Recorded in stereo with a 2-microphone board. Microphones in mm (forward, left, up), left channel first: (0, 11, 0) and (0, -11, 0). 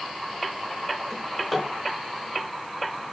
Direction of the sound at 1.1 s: 20° left (ahead or behind).